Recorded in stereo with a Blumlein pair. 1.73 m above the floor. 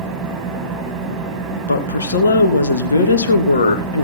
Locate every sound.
0.0 s an engine running: 25° right, 6.5 m
1.7 s a woman speaking: 70° left, 3 m